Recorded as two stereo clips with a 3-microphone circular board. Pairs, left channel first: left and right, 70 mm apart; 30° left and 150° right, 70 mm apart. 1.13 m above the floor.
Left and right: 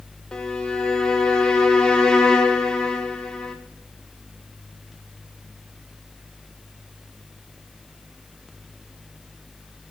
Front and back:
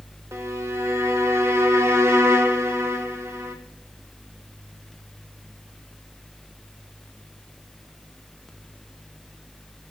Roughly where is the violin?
Behind.